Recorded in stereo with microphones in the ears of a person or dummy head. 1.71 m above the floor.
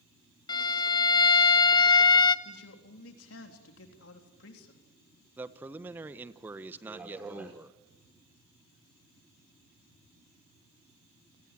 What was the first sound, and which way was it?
A violin, 25° left (ahead or behind).